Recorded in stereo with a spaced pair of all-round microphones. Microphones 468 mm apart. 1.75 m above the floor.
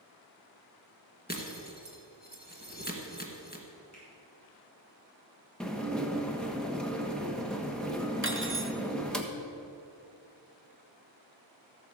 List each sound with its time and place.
1.3 s breaking glass: 20° left (ahead or behind), 1.9 m
3.9 s a finger snap: 35° left (ahead or behind), 5.5 m
5.6 s dishes clattering: centre (ahead or behind), 1.2 m
8.2 s cutlery clinking: 25° right (ahead or behind), 0.9 m